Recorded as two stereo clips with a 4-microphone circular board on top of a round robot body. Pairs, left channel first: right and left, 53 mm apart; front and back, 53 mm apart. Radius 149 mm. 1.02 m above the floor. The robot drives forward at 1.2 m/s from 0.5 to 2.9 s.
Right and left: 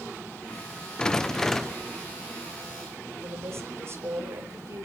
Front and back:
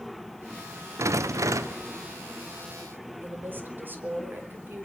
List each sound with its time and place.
1.0 s a rattle: 165° right, 0.7 m; by 1.9 s 175° right, 1.8 m
3.2 s a woman speaking: 125° left, 4.5 m